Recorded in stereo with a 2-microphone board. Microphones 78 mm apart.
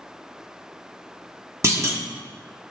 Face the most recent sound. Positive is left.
turn(degrees=-40)  # may be behind; listen again after turning